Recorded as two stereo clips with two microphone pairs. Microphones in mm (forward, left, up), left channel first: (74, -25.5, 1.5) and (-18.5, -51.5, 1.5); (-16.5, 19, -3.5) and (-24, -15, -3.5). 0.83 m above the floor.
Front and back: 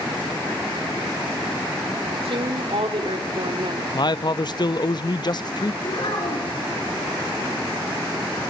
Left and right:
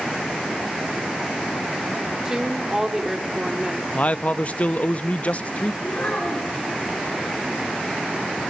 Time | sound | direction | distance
2.2 | a woman speaking | 175° right | 1.8 m
3.9 | a man speaking | 40° left | 0.6 m
5.8 | a child speaking | 45° left | 5.5 m